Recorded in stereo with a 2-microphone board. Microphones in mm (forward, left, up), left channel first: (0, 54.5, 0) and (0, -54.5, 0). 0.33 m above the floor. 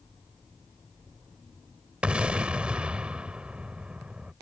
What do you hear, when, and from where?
2.0 s an explosion: 10° right (ahead or behind)